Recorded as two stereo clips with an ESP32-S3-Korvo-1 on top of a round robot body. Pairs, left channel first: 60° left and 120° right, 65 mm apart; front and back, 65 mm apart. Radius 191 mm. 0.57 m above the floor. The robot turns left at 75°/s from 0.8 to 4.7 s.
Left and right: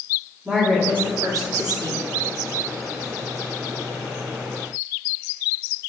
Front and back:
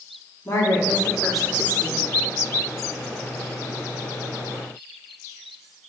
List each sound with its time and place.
0.5 s a woman speaking: 45° right, 1.9 m; by 2.0 s 140° right, 1.9 m